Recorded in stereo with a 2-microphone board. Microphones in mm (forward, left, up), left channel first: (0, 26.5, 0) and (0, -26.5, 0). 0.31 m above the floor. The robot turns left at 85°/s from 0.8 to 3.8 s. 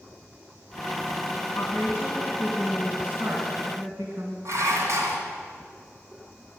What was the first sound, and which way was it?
A woman speaking, 80° left.